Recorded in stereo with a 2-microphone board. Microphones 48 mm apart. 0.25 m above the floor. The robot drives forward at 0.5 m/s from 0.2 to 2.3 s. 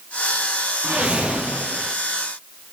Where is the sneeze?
I don't hear a sneeze.